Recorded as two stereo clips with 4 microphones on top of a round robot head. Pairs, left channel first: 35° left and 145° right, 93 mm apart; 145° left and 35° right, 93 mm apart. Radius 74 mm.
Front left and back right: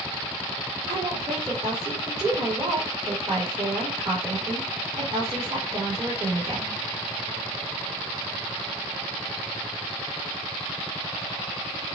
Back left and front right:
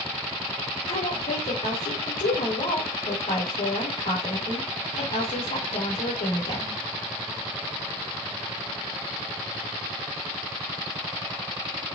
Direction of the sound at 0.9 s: 160° left.